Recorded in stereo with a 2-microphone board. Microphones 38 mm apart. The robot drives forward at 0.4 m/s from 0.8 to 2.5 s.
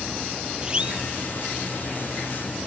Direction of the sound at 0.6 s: 25° right (ahead or behind).